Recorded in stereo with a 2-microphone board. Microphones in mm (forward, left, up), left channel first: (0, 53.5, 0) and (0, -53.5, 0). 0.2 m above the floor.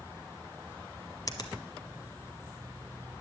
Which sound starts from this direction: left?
A finger snap, at 1.3 s.